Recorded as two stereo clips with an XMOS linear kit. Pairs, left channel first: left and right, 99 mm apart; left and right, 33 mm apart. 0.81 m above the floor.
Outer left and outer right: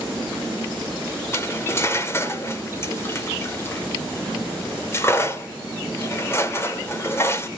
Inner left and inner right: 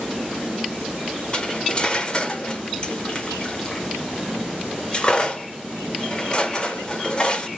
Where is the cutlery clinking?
25° left (ahead or behind), 1.5 m.